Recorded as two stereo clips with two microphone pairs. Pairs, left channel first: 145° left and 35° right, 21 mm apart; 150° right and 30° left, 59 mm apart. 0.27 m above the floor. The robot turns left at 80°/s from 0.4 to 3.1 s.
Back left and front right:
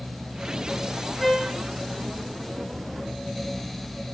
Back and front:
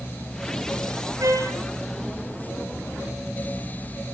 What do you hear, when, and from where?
1.2 s a trumpet: 55° left, 8.5 m; by 1.6 s 25° left, 8.5 m